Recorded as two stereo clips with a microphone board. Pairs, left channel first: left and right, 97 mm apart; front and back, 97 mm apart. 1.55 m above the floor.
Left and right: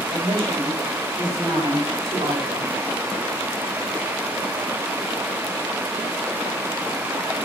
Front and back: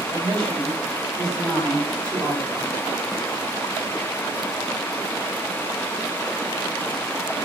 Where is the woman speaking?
135° right, 9 m; by 2.8 s 125° right, 7.5 m.